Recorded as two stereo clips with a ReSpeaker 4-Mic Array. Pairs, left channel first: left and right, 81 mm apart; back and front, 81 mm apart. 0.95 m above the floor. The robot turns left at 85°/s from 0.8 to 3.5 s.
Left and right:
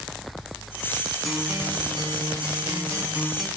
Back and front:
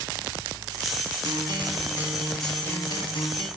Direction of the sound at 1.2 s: Straight ahead.